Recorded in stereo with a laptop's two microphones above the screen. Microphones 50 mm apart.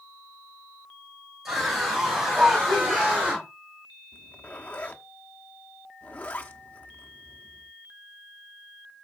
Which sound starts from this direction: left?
A zipper, at 4.1 s.